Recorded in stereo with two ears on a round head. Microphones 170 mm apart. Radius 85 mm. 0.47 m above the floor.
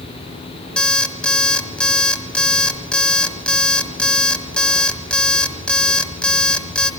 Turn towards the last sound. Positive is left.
turn(degrees=5)  # may be behind; listen again after turning